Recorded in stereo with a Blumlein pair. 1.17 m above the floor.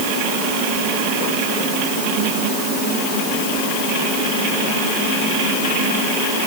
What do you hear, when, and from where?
Only background noise.